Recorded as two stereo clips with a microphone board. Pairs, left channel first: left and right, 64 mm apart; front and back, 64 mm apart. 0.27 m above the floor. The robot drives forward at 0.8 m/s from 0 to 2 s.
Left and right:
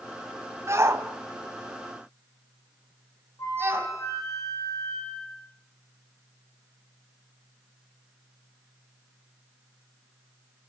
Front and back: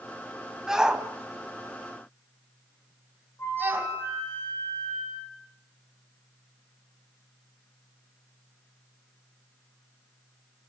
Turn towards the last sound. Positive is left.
turn(degrees=55)